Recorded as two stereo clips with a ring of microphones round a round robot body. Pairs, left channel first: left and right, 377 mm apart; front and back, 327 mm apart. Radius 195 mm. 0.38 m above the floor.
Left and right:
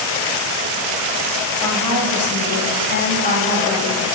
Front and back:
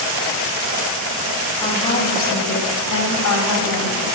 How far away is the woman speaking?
About 3 m.